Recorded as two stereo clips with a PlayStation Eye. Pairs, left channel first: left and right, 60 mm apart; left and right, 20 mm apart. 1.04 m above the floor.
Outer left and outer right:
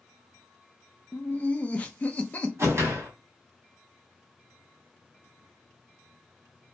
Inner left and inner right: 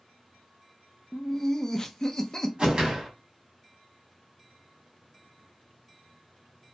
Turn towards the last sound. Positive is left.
turn(degrees=-50)  # may be behind; listen again after turning